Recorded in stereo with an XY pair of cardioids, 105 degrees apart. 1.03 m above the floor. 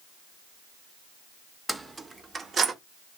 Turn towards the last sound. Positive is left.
turn(degrees=-50)